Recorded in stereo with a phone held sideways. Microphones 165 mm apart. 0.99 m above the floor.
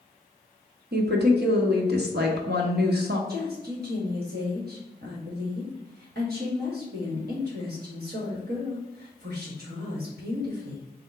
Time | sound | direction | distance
0.9 | a woman speaking | 75° right (ahead or behind) | 0.9 m
3.3 | a woman speaking | 65° right (ahead or behind) | 1.3 m